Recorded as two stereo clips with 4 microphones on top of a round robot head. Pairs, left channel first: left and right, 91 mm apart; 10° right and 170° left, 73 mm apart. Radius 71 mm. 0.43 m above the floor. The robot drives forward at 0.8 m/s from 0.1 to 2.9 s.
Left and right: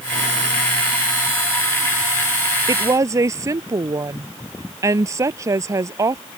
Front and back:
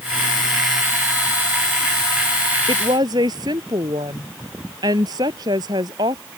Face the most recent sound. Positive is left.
turn(degrees=-145)